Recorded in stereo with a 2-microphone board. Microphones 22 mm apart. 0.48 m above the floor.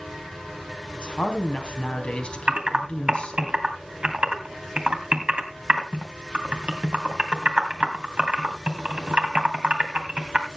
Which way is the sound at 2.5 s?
50° right (ahead or behind).